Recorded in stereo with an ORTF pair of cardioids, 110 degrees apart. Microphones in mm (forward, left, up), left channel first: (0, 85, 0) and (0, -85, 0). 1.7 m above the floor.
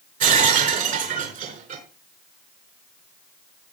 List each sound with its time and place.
0.2 s breaking glass: 55° right, 5 m